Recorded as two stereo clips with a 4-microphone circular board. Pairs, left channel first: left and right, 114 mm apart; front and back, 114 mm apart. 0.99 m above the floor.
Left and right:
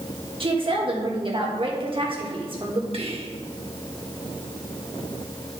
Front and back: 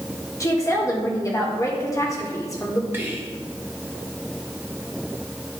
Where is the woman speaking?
60° right, 1.6 m.